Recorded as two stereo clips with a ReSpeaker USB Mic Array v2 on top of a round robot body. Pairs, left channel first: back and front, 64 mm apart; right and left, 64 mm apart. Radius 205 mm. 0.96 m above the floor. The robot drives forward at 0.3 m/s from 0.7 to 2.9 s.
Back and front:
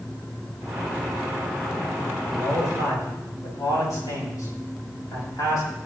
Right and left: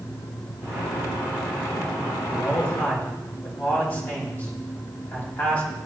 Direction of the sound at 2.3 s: 150° right.